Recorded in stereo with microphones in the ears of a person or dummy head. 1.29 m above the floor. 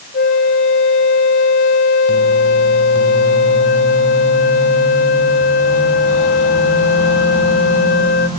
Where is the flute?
45° left (ahead or behind), 0.9 m.